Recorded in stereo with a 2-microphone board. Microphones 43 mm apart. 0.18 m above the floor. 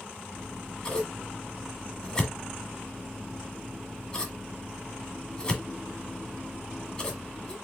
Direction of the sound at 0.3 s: 20° left (ahead or behind).